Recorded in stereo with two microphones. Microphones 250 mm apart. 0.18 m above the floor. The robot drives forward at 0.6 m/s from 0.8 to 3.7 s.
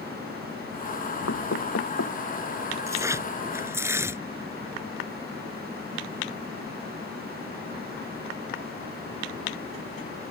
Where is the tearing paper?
10° right (ahead or behind).